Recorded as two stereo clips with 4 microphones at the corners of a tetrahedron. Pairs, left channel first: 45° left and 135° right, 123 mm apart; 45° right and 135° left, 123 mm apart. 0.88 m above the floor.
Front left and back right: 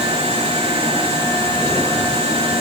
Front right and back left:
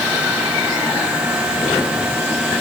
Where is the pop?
I don't hear a pop.